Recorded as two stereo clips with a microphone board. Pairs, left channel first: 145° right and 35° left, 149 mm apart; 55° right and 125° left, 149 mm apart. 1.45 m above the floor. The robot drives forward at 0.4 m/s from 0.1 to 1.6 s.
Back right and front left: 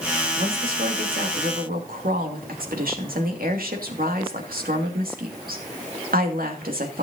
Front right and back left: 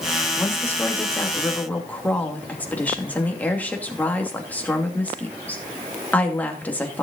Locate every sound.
0.3 s a woman speaking: 20° left, 3 m; by 7.0 s 25° left, 2.5 m